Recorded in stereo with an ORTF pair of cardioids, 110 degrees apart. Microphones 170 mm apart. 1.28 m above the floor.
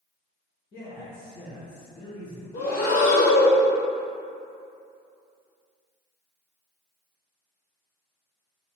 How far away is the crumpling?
I don't hear crumpling.